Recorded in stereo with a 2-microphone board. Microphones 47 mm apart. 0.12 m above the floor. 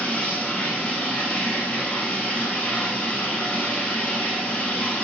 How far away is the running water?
About 1.8 m.